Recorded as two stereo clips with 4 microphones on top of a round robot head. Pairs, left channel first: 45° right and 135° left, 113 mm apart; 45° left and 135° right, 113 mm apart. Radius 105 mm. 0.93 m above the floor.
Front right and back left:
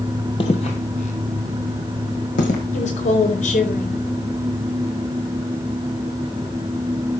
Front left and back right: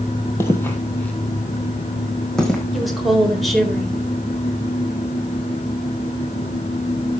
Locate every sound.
0.4 s footsteps: 15° right, 1.2 m; by 2.6 s 40° right, 2.5 m
2.7 s a woman speaking: 40° right, 4 m